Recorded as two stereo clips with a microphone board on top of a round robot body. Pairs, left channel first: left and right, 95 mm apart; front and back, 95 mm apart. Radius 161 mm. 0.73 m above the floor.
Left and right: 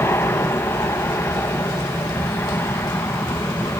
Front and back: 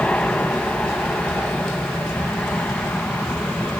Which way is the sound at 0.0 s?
65° left.